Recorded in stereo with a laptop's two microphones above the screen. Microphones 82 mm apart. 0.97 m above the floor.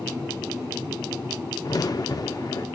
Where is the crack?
50° left (ahead or behind), 0.6 m.